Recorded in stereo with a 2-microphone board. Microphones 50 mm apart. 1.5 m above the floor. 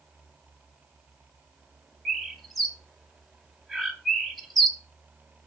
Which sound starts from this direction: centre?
A bird, at 2.0 s.